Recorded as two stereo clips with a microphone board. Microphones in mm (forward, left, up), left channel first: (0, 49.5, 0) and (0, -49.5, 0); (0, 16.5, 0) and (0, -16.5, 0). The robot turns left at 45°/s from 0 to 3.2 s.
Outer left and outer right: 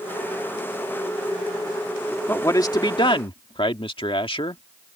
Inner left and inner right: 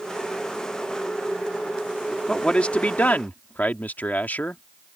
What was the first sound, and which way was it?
A man speaking, 155° left.